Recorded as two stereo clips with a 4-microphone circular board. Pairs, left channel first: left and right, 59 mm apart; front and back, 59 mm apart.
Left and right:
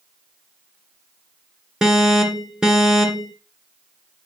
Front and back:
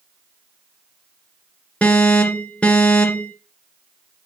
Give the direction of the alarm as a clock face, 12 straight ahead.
1 o'clock.